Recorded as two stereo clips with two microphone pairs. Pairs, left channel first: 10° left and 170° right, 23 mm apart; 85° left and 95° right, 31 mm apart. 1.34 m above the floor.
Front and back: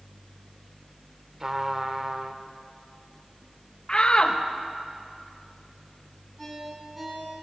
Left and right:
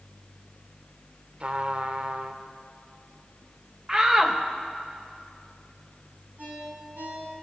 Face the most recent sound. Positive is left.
turn(degrees=-90)